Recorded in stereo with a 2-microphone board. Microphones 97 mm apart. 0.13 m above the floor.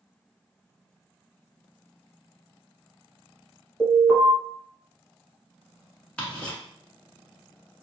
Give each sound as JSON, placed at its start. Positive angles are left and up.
{"t": 3.8, "sound": "an alarm", "side_deg": 30, "distance_m": 1.5}
{"t": 6.2, "sound": "ticking", "side_deg": 10, "distance_m": 1.2}